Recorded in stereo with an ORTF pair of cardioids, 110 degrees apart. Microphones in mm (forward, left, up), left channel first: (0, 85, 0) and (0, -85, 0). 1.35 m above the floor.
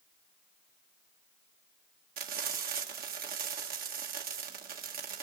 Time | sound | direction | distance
2.2 | frying | 60° right | 1.9 m